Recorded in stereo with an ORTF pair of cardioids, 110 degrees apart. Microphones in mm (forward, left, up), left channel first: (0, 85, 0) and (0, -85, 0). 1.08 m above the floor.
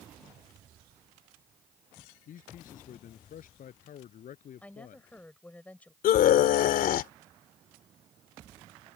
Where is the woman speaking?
10° left.